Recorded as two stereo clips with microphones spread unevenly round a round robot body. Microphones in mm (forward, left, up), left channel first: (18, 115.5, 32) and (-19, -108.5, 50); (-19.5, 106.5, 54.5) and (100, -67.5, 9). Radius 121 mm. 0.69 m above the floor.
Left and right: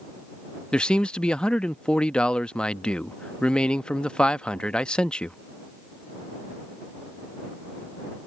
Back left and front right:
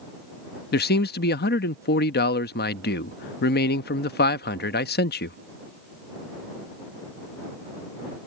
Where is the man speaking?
160° left.